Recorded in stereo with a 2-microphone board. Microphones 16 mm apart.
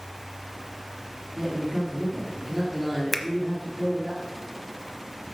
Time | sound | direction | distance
1.4 | a man speaking | 20° right (ahead or behind) | 3.5 m
3.1 | a finger snap | centre (ahead or behind) | 0.9 m